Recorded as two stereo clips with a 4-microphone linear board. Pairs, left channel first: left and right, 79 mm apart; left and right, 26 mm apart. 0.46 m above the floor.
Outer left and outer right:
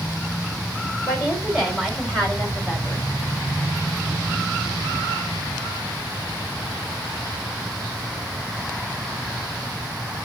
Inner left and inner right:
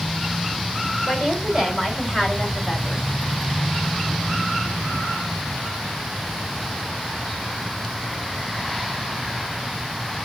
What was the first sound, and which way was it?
A woman speaking, 15° right (ahead or behind).